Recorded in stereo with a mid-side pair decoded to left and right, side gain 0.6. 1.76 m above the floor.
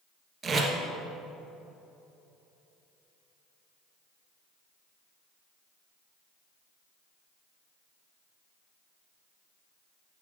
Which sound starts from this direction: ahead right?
Tape being pulled, at 0.4 s.